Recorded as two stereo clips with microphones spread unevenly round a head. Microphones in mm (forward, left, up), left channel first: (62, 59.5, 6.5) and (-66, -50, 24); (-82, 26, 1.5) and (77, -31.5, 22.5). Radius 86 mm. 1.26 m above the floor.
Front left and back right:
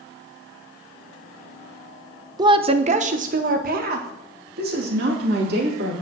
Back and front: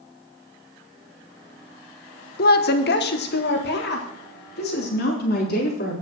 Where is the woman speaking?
150° left, 0.9 m; by 5.9 s 170° right, 3.5 m.